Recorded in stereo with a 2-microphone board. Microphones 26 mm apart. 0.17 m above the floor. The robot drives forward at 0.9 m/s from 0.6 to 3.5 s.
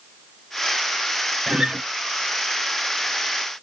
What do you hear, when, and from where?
1.5 s a guitar: 25° right (ahead or behind), 0.9 m; by 1.8 s 35° right (ahead or behind), 0.7 m